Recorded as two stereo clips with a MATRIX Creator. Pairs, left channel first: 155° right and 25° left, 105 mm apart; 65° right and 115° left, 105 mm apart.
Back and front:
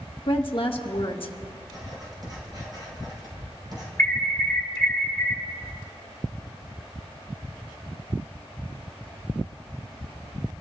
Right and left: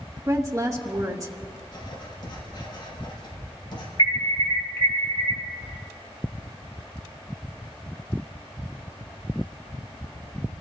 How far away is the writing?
About 5 m.